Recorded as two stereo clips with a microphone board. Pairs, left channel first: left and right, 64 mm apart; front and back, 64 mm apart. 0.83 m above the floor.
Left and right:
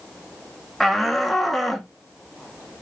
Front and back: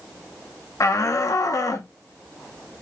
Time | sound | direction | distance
0.8 | a shout | straight ahead | 1.6 m